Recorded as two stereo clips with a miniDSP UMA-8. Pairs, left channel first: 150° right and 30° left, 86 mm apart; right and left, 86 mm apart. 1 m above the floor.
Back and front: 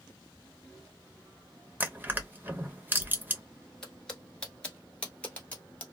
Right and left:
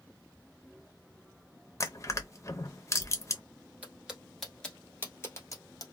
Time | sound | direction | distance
1.8 | crushing | 40° right | 0.5 m
3.8 | footsteps | 135° left | 1.0 m